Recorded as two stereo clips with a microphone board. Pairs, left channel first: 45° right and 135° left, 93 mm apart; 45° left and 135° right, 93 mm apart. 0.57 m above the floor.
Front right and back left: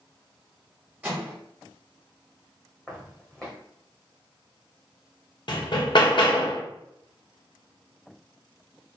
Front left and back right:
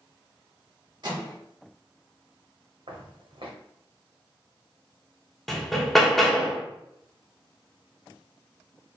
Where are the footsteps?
130° right, 1.5 m.